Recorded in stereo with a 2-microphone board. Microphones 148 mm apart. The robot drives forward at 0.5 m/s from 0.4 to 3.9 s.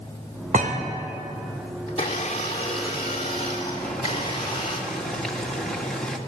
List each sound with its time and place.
0.5 s a thud: 65° right (ahead or behind), 3 m
1.9 s a blender: 45° left (ahead or behind), 3.5 m; by 4.8 s 35° left (ahead or behind), 4.5 m
3.8 s boiling: 5° left (ahead or behind), 2.5 m